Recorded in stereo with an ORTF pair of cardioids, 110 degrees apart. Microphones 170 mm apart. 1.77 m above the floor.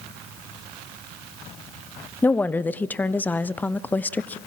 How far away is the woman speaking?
About 0.7 m.